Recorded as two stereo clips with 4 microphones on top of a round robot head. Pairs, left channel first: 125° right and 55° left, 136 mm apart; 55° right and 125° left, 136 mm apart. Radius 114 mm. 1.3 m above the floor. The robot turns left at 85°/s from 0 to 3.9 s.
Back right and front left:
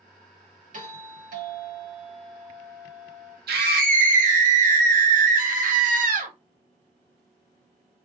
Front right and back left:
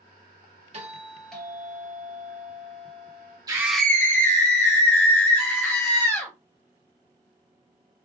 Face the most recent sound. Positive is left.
turn(degrees=25)